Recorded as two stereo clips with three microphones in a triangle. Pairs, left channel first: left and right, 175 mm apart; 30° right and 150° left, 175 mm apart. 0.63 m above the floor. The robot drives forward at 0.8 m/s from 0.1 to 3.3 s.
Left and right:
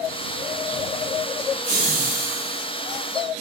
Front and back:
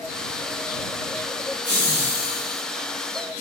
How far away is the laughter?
About 2 m.